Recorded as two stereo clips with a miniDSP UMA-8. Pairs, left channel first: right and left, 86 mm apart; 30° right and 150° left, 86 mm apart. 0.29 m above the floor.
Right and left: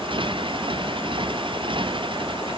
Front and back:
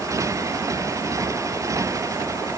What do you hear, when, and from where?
0.0 s a motorcycle: 100° left